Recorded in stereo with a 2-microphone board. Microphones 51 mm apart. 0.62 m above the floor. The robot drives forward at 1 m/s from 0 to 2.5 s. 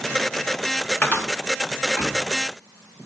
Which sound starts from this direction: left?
A cupboard door, at 1.0 s.